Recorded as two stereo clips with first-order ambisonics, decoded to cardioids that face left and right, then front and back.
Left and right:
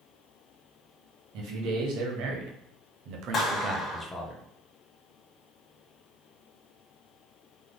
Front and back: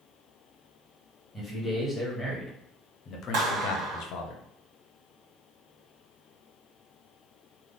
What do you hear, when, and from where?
1.3 s a man speaking: 90° right, 1.6 m; by 4.3 s 20° left, 0.7 m
3.3 s a clap: 155° left, 1.2 m